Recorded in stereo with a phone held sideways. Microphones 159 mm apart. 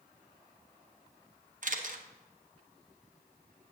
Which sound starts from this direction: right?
A camera shutter, at 1.6 s.